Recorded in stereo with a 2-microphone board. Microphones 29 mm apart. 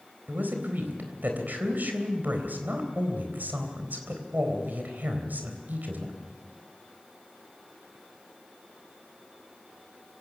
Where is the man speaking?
75° right (ahead or behind), 3.5 m.